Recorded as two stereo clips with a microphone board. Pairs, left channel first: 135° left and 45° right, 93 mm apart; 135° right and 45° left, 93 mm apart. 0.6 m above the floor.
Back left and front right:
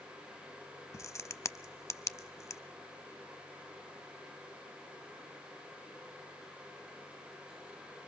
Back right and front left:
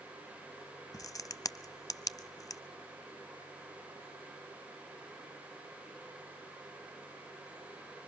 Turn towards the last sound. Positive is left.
turn(degrees=-175)